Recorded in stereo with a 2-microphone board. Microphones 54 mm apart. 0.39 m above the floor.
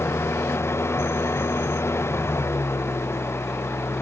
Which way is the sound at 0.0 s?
60° left (ahead or behind).